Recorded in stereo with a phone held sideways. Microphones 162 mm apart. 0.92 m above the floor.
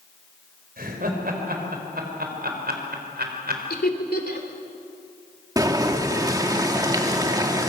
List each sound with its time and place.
0.8 s laughter: 65° right (ahead or behind), 5 m; by 3.6 s 80° right, 4.5 m
3.7 s laughter: 75° left (ahead or behind), 3 m
5.6 s boiling: 25° right (ahead or behind), 1.8 m